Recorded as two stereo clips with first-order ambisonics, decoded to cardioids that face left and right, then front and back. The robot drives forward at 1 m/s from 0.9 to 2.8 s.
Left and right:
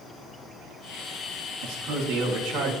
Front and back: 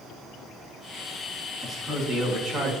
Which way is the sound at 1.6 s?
100° right.